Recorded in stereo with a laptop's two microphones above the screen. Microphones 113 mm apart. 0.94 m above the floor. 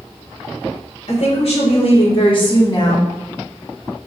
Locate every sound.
1.1 s a woman speaking: 65° left (ahead or behind), 2.0 m; by 3.1 s 30° left (ahead or behind), 1.4 m